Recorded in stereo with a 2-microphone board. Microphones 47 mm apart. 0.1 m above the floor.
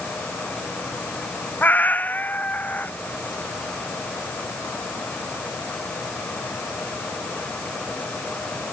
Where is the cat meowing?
40° left (ahead or behind).